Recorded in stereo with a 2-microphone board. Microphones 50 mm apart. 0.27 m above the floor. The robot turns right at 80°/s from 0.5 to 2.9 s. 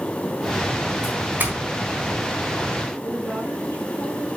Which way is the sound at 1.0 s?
15° right (ahead or behind).